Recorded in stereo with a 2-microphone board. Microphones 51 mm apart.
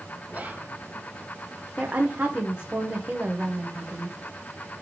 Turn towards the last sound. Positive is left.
turn(degrees=-30)  # may be behind; listen again after turning